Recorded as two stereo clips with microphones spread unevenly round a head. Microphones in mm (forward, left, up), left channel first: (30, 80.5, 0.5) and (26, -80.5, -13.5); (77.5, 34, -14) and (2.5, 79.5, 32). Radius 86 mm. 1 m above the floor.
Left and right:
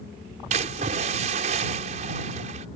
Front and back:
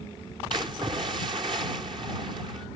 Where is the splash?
145° right.